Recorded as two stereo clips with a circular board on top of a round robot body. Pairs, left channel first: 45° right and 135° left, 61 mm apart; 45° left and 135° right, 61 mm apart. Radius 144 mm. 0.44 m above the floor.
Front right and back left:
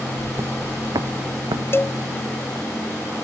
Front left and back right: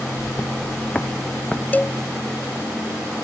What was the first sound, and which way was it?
Footsteps, 100° left.